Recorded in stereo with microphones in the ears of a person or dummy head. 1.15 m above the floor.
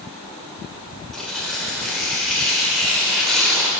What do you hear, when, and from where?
1.1 s tearing paper: 10° left (ahead or behind), 5 m